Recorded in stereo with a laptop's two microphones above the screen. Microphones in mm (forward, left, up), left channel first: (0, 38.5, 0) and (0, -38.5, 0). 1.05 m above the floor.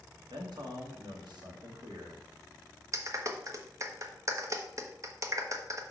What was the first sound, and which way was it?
A man speaking, 70° right (ahead or behind).